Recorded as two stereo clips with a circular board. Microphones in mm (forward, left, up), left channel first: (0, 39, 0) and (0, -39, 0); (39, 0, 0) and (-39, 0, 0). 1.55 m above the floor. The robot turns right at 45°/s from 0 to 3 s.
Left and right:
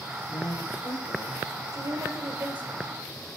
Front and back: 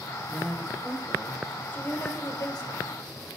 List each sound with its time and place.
0.3 s a man speaking: 70° left, 7.5 m; by 1.6 s 130° left, 7.5 m
1.7 s a woman speaking: 65° right, 4.5 m; by 2.9 s 10° right, 4.5 m